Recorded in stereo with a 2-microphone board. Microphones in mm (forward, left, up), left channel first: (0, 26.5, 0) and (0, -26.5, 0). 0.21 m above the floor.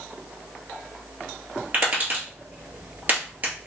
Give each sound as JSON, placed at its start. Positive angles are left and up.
{"t": 1.7, "sound": "tapping", "side_deg": -40, "distance_m": 2.5}